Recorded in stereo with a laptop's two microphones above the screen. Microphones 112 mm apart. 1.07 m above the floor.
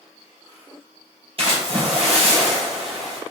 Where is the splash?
55° right (ahead or behind), 1.3 m.